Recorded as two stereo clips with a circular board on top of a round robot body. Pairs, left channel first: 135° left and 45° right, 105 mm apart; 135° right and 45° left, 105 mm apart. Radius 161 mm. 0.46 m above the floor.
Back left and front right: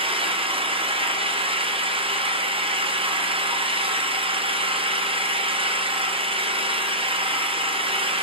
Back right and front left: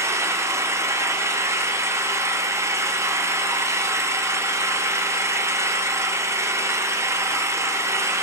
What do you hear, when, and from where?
0.0 s an engine running: 15° right, 0.8 m